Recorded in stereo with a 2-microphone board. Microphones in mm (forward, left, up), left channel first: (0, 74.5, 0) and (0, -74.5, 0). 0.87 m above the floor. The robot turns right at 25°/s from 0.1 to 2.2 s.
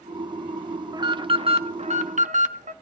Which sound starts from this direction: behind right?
An alarm, at 0.9 s.